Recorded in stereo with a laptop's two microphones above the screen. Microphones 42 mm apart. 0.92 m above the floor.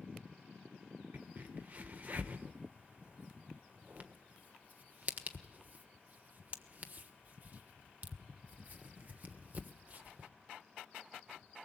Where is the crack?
40° right (ahead or behind), 1.3 m.